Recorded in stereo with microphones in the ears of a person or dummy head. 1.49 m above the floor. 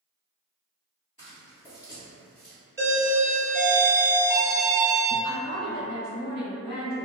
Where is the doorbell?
15° right (ahead or behind), 1.1 m.